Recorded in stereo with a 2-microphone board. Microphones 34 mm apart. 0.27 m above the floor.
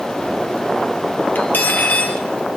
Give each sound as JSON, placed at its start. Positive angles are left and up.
{"t": 1.4, "sound": "cutlery clinking", "side_deg": 55, "distance_m": 3.5}